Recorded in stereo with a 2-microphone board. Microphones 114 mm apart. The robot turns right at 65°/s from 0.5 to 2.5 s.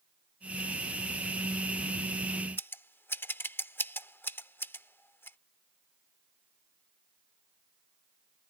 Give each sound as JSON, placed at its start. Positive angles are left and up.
{"t": 2.6, "sound": "scissors", "side_deg": 20}